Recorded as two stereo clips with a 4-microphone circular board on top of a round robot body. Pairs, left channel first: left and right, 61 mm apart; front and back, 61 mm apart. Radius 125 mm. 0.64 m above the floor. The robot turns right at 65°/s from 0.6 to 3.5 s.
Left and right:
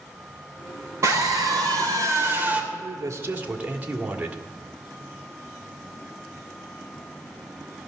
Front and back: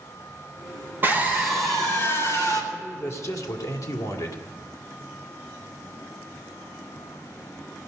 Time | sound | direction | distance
1.0 | a scream | 125° right | 3.5 m
2.7 | a man speaking | 75° right | 2 m